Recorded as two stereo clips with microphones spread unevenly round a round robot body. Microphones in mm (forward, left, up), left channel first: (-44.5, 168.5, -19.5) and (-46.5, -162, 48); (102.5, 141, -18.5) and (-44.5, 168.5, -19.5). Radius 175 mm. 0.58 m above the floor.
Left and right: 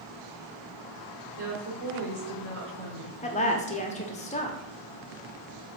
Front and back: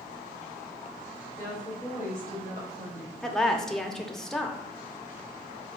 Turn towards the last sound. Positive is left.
turn(degrees=75)